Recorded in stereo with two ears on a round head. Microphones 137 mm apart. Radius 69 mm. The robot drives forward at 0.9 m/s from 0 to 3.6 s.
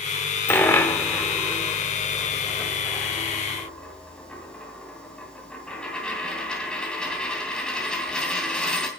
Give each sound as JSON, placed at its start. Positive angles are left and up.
{"t": 0.5, "sound": "a dropped coin", "side_deg": 15, "distance_m": 1.1}